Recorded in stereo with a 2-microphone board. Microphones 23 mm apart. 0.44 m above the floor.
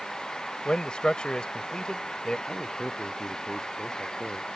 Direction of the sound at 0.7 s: 45° left (ahead or behind).